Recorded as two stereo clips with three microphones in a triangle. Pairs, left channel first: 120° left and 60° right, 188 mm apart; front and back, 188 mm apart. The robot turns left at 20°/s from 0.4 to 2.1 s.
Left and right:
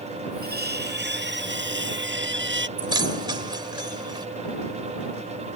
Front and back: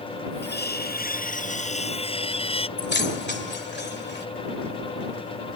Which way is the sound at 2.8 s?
5° left.